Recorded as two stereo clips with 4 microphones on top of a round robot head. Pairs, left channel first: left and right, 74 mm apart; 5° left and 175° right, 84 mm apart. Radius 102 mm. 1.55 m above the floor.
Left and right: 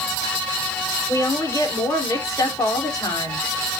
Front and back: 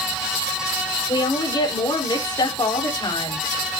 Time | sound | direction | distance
1.1 | a woman speaking | 45° left | 4.5 m